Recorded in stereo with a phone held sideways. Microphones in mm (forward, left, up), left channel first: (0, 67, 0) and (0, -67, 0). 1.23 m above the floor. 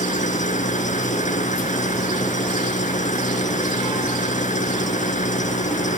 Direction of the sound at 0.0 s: 70° left (ahead or behind).